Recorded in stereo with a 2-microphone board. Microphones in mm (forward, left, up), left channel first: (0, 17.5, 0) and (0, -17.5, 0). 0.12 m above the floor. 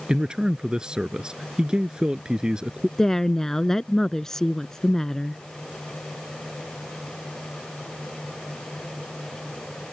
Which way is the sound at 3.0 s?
15° left (ahead or behind).